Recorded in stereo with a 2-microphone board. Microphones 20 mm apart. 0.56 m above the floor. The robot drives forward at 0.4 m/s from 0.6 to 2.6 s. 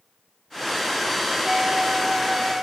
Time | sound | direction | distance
1.4 | a flute | 55° right (ahead or behind) | 0.8 m